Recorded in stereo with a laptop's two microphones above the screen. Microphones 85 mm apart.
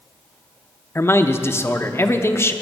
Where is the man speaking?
30° left (ahead or behind), 0.7 m.